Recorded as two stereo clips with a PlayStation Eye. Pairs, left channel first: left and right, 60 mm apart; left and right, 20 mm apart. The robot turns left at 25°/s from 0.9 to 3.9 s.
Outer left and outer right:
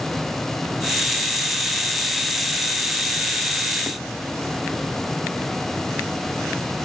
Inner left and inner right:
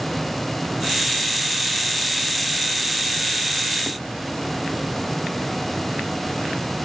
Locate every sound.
Only background noise.